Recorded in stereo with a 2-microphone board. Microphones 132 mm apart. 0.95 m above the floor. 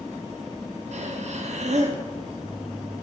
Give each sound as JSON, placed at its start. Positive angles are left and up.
{"t": 0.9, "sound": "breathing", "side_deg": -60, "distance_m": 0.6}